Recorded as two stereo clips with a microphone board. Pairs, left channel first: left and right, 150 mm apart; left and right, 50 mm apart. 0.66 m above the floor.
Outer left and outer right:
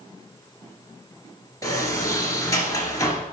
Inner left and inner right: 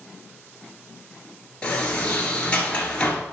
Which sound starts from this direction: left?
A sliding door, at 1.6 s.